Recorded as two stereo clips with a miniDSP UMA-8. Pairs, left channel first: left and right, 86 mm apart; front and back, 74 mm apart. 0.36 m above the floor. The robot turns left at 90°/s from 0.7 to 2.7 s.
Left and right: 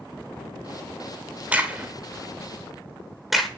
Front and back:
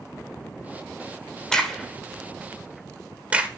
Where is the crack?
65° right, 1.3 m; by 3.5 s 170° right, 1.3 m.